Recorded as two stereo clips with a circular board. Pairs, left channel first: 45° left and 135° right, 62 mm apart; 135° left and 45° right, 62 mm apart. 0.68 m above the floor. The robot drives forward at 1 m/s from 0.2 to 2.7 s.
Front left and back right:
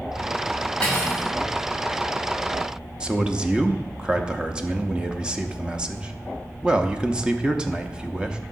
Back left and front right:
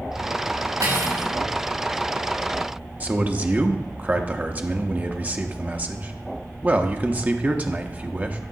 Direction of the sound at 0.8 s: 30° right.